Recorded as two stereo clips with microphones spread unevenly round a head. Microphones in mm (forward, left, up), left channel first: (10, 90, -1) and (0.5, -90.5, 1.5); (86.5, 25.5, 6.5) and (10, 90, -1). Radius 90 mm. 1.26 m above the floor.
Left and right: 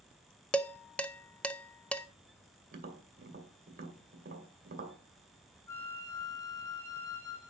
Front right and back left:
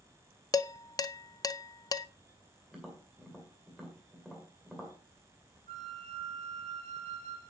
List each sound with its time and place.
0.5 s dishes clattering: 5° left, 0.5 m
2.7 s tapping: 130° right, 1.8 m
5.7 s a flute: 160° left, 2.5 m